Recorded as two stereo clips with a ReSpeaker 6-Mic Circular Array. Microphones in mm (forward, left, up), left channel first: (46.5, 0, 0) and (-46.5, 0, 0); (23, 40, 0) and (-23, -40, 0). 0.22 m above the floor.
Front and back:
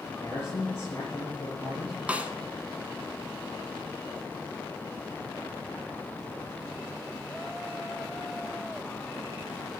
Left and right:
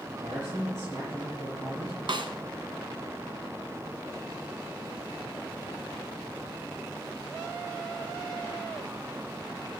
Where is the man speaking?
75° right, 4 m.